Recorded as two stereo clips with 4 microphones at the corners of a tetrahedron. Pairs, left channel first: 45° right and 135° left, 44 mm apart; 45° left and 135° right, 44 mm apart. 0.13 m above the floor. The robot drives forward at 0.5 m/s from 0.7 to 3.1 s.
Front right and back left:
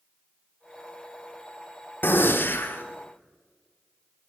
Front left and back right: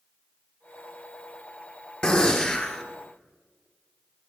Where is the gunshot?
20° right, 1.6 m; by 2.8 s 25° right, 1.3 m.